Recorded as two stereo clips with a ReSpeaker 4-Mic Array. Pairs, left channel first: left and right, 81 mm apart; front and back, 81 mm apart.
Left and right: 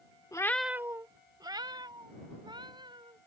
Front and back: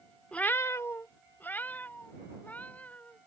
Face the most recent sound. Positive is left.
turn(degrees=-70)